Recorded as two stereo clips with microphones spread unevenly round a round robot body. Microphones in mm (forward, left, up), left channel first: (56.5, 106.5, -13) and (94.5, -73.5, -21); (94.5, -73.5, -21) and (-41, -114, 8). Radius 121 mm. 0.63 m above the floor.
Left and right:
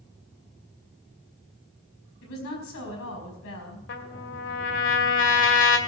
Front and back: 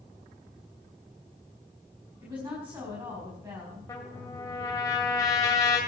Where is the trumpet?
95° left, 2 m.